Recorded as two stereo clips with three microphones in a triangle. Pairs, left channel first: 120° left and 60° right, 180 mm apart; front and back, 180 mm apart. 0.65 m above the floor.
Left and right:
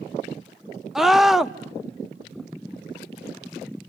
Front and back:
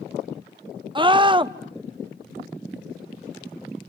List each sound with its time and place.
0.9 s a scream: 145° right, 0.7 m